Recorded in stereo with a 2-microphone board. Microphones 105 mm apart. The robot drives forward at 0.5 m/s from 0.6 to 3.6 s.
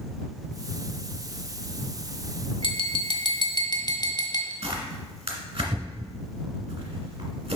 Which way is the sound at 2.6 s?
50° left (ahead or behind).